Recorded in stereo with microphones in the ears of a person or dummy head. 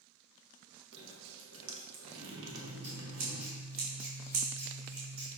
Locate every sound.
0.9 s dripping: 70° right (ahead or behind), 1.4 m
2.5 s scissors: 50° right (ahead or behind), 2.5 m